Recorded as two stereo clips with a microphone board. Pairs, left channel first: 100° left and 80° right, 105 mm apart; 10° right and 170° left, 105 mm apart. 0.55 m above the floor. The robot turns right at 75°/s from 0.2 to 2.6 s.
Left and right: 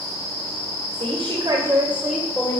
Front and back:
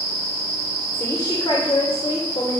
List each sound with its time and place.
0.9 s a woman speaking: 80° right, 2.5 m; by 2.6 s 45° left, 2.5 m